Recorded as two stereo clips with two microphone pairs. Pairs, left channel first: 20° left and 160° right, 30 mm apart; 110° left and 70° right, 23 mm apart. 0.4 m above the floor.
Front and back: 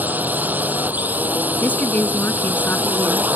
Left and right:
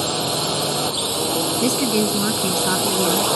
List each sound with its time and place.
0.0 s a drone: 165° right
1.6 s a woman speaking: 10° left